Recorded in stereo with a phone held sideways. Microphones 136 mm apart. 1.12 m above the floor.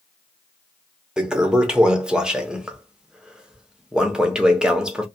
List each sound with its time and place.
1.2 s a toilet flushing: 5° right (ahead or behind), 0.6 m